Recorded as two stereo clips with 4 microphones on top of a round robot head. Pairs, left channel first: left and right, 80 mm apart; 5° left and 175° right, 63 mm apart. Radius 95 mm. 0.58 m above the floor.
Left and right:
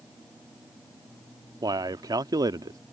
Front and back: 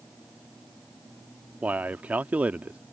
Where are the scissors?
No scissors in this recording.